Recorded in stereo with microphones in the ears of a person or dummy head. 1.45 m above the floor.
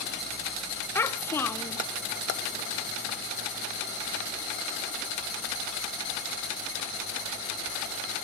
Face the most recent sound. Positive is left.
turn(degrees=10)  # may be behind; listen again after turning